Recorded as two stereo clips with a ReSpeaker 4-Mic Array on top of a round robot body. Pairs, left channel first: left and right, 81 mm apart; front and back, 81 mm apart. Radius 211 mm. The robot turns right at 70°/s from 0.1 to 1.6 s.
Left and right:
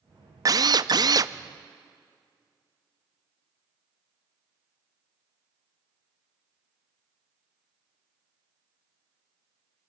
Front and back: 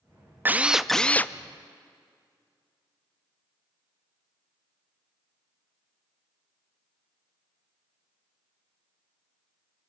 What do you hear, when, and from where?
0.5 s a drill: 120° right, 0.8 m; by 1.3 s 55° right, 0.8 m